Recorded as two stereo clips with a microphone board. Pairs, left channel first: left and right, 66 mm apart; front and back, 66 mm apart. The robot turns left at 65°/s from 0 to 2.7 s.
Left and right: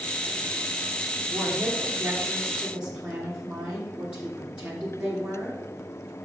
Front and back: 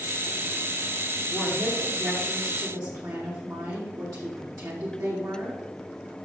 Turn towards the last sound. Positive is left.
turn(degrees=-160)